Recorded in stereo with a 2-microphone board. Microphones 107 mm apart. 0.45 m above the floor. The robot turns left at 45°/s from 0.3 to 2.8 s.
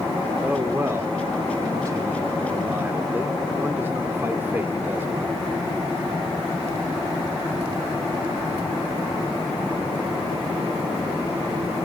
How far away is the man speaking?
About 1.2 m.